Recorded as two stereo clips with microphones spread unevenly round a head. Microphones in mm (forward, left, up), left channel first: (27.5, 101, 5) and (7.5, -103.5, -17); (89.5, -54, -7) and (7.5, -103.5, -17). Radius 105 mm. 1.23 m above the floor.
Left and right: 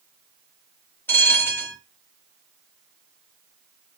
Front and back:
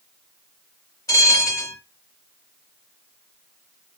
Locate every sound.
1.1 s a bell: 15° left, 1.2 m